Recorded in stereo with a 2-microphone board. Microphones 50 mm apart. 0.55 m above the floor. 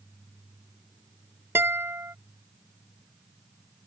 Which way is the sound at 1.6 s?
55° right (ahead or behind).